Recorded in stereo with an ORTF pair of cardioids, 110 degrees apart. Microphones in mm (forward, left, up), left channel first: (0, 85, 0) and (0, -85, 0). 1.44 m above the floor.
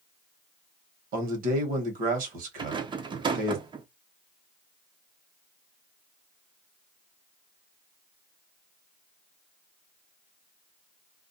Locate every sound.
1.1 s a man speaking: 60° right, 1.2 m
2.6 s a rattle: 30° right, 0.7 m